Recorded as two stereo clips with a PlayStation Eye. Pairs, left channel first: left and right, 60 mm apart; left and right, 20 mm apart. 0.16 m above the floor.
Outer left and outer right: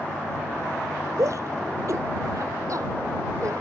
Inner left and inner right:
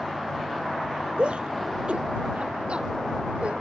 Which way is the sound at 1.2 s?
60° right (ahead or behind).